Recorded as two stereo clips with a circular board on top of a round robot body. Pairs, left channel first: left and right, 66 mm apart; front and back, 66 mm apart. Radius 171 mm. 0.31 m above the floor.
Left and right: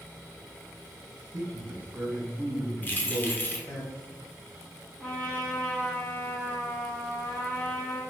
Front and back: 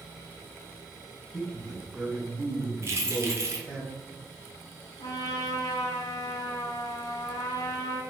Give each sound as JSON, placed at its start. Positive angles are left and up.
{"t": 1.3, "sound": "a man speaking", "azimuth_deg": -85, "distance_m": 1.4}
{"t": 2.8, "sound": "keys jangling", "azimuth_deg": 145, "distance_m": 1.0}
{"t": 5.0, "sound": "a trumpet", "azimuth_deg": 15, "distance_m": 0.5}